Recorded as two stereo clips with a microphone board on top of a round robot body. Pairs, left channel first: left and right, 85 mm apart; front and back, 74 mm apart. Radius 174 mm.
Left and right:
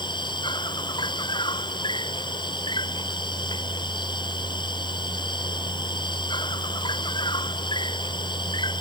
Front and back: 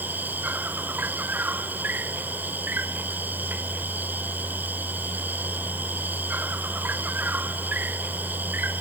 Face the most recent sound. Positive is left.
turn(degrees=115)